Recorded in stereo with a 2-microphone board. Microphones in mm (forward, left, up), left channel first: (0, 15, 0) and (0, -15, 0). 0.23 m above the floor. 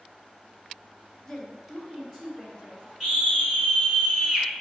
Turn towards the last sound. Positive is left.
turn(degrees=-5)  # may be behind; listen again after turning